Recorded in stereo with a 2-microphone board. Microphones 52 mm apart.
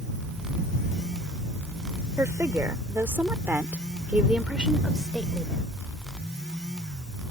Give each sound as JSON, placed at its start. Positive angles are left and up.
{"t": 2.2, "sound": "a woman speaking", "side_deg": -55}